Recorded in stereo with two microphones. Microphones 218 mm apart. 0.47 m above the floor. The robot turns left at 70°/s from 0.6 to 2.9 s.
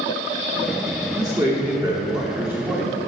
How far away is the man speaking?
About 1.0 m.